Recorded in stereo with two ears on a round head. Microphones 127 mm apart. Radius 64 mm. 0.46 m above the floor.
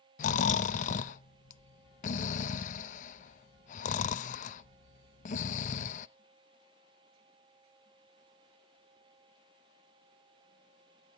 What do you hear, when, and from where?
0.2 s snoring: 55° left (ahead or behind), 0.5 m